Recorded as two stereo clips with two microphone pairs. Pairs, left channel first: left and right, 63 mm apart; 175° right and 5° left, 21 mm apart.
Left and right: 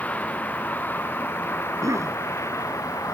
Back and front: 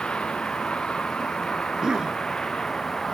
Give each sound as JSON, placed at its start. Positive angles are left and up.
{"t": 0.0, "sound": "a vehicle", "azimuth_deg": 155}
{"t": 1.6, "sound": "a cough", "azimuth_deg": -55}